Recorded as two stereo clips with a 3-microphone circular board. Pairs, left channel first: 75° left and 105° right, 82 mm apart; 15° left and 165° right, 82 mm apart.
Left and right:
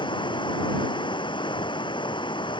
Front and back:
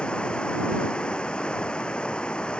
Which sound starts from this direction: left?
Running water, at 0.0 s.